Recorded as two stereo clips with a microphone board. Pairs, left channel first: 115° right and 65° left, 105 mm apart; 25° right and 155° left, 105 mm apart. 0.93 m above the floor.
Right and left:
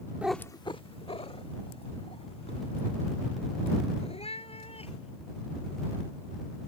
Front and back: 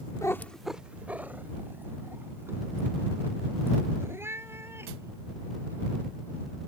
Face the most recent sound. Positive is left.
turn(degrees=-135)